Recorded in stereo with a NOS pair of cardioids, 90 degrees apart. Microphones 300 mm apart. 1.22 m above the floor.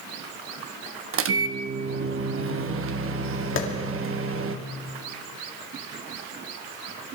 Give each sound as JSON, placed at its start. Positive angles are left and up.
{"t": 1.1, "sound": "a microwave", "azimuth_deg": -50, "distance_m": 1.1}
{"t": 3.6, "sound": "a clap", "azimuth_deg": 40, "distance_m": 2.5}